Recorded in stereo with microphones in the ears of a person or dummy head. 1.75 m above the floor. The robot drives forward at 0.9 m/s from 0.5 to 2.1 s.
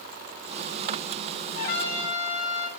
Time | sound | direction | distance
1.6 | a trumpet | 45° left (ahead or behind) | 1.3 m